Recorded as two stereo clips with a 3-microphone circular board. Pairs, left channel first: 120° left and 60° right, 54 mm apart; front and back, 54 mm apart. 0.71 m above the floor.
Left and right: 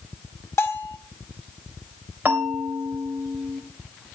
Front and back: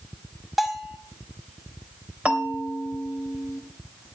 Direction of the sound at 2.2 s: 115° right.